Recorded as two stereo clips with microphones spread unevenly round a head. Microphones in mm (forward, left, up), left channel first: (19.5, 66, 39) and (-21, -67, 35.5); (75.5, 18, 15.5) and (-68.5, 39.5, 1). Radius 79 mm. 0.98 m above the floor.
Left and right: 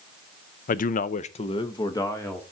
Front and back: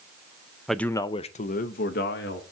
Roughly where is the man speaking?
Left.